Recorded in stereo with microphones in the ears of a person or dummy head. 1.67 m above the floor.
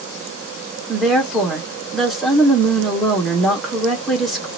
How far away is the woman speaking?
About 1.2 m.